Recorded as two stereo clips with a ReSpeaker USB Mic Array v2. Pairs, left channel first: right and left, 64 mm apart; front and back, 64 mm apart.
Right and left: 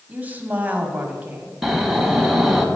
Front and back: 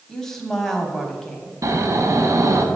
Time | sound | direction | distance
0.1 | a woman speaking | 75° left | 1.0 m
1.6 | snoring | 175° left | 0.9 m